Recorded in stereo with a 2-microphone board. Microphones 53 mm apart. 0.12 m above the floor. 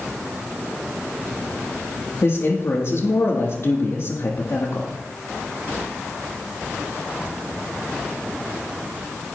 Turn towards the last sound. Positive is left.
turn(degrees=55)  # may be behind; listen again after turning